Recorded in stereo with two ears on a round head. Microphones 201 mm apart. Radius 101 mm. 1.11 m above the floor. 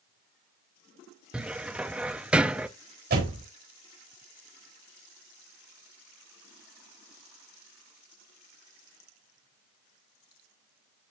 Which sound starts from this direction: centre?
A cupboard door, at 1.3 s.